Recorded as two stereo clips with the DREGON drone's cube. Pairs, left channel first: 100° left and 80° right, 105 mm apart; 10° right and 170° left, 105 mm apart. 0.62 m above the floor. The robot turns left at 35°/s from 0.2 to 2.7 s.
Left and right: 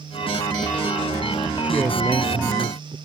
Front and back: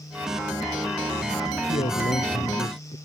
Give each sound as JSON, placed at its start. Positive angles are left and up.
{"t": 1.6, "sound": "a man speaking", "azimuth_deg": 0}